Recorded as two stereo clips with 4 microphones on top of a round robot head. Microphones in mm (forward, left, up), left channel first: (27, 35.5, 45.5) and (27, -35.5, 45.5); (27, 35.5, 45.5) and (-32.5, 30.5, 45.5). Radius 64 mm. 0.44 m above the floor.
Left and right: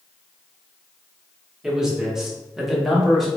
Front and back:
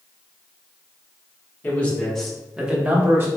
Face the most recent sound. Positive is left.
turn(degrees=180)